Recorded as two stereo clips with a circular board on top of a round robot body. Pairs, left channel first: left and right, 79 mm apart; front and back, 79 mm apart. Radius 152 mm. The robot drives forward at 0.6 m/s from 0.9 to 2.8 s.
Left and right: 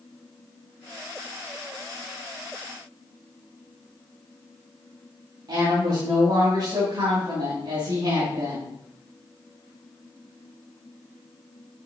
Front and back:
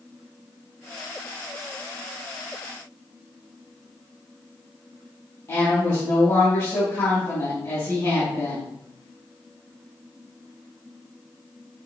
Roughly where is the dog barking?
No dog barking in this recording.